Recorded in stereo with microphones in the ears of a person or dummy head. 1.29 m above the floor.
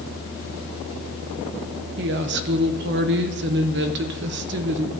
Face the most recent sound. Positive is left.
turn(degrees=-55)  # may be behind; listen again after turning